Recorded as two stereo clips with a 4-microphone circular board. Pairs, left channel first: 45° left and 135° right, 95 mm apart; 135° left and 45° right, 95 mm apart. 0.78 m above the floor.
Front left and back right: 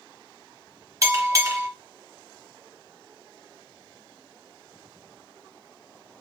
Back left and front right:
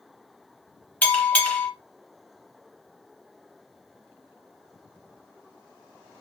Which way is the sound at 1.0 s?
160° right.